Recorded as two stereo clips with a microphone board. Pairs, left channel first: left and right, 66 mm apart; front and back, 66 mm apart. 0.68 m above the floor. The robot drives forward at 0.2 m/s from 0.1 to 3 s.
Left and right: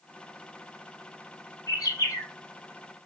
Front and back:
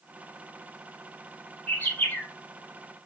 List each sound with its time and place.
1.7 s a bird: 60° left, 2.5 m